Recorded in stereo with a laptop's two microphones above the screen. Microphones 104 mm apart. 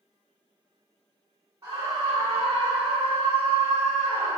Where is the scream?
30° right (ahead or behind), 1.0 m; by 4.4 s 45° right (ahead or behind), 1.1 m.